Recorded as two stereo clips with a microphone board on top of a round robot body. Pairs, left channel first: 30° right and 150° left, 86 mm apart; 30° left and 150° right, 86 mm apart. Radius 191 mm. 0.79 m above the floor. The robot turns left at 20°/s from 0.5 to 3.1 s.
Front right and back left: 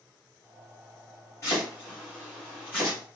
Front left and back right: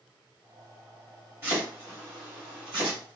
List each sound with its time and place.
1.4 s chopping: 85° right, 1.5 m; by 3.0 s 120° right, 1.5 m